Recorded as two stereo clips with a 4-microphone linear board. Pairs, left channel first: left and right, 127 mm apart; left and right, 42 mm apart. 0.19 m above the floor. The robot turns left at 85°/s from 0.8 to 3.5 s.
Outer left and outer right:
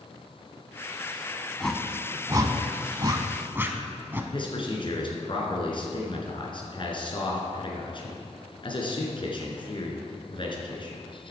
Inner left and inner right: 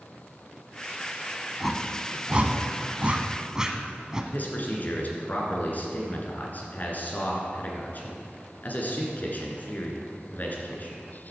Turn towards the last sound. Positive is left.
turn(degrees=45)  # may be behind; listen again after turning